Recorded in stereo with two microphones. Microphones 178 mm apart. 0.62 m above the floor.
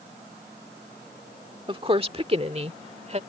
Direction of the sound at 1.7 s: 30° right (ahead or behind).